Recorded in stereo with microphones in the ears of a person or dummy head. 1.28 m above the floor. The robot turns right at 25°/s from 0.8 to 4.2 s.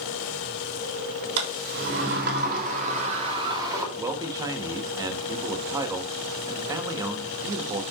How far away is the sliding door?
About 3 m.